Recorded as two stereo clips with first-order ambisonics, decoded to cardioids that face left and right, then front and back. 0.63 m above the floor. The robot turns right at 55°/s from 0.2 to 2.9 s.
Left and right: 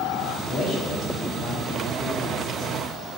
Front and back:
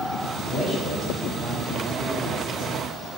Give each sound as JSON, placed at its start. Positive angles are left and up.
{"t": 0.5, "sound": "a man speaking", "azimuth_deg": 40, "distance_m": 1.0}